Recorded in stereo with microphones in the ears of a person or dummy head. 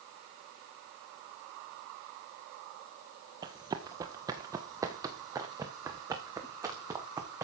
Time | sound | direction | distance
3.4 | running footsteps | 15° right (ahead or behind) | 1.4 m